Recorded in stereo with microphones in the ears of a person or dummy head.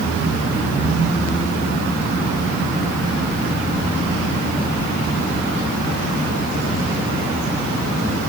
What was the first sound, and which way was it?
Only background noise.